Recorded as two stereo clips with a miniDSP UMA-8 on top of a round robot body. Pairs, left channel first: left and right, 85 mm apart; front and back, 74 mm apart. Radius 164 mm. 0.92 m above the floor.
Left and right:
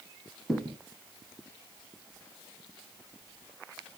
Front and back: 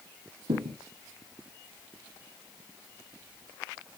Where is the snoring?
No snoring in this recording.